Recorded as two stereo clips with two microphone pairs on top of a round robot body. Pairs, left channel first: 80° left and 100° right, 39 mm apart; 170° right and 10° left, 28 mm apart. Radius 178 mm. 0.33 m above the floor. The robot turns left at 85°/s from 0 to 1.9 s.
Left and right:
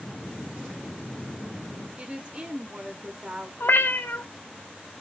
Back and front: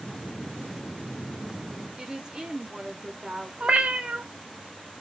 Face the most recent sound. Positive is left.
turn(degrees=60)